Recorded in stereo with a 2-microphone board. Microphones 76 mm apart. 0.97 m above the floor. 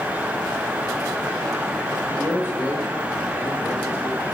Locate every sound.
2.1 s a man speaking: 35° left (ahead or behind), 1.0 m